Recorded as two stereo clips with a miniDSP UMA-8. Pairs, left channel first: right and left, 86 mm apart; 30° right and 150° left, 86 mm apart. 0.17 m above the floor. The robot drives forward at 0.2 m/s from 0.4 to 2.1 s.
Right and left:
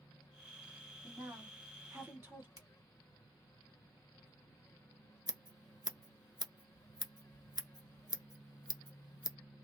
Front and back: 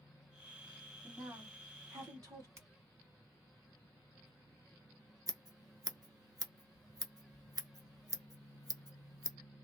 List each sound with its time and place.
1.0 s a woman speaking: 130° left, 1.6 m; by 2.5 s 140° left, 1.7 m
2.6 s a finger snap: 100° left, 1.9 m
5.3 s scissors: 110° left, 0.8 m